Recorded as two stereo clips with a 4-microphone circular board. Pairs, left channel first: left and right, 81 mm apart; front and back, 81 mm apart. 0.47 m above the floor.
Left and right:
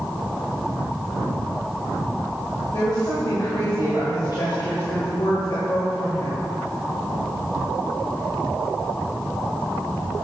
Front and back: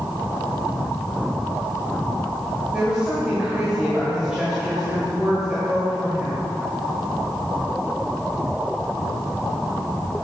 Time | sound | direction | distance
2.7 | a woman speaking | 105° left | 1.8 m